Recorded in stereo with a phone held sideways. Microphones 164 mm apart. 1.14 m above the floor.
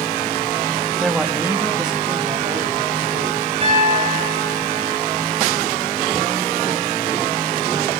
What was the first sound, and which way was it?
A man speaking, centre (ahead or behind).